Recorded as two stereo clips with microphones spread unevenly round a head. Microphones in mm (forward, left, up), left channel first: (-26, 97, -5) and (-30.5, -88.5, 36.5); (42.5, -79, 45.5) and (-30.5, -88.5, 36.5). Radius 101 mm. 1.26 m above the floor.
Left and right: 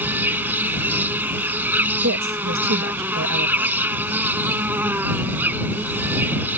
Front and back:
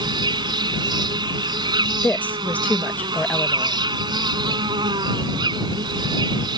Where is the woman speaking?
65° right.